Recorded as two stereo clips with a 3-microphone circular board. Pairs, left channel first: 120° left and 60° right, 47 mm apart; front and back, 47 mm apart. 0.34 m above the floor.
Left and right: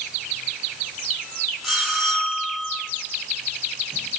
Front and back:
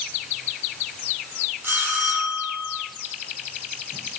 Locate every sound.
1.6 s a bell: 145° right, 5.5 m